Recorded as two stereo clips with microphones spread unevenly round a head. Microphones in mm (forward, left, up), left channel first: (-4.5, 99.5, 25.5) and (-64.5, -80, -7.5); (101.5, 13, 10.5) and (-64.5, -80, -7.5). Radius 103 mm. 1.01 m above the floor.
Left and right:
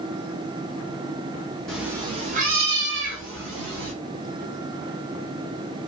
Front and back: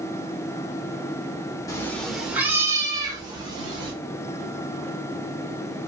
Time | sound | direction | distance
1.7 | a cat meowing | 20° left | 0.6 m